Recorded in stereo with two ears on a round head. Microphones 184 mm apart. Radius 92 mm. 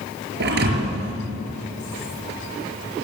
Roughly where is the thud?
Right.